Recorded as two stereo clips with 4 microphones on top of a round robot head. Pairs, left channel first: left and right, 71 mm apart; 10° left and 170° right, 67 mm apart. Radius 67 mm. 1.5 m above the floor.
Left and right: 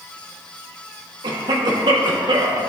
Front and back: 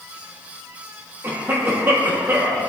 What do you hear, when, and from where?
1.2 s a cough: 110° right, 1.7 m